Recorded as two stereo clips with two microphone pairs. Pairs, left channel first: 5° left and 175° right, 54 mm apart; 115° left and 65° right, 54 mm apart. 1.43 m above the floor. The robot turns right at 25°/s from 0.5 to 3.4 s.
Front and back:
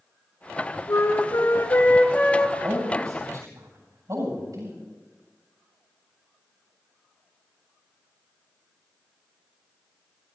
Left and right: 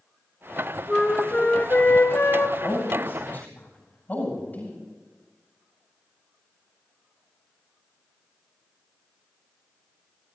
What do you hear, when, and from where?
0.9 s a flute: 40° left, 0.9 m; by 2.5 s 80° left, 0.9 m
2.6 s a man speaking: 155° left, 8 m; by 4.8 s 175° left, 8 m